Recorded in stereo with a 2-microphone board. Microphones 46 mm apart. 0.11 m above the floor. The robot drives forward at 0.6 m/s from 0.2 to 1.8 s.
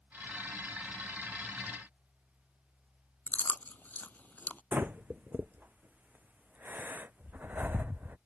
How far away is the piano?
I don't hear a piano.